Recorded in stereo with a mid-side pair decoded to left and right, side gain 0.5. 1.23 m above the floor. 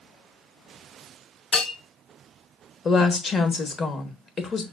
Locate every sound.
1.5 s a bell: 45° left, 3.5 m
2.9 s a woman speaking: 40° left, 1.1 m